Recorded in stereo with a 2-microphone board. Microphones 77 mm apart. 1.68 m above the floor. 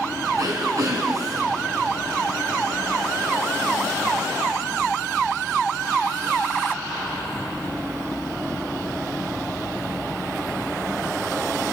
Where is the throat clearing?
55° right (ahead or behind), 3.5 m.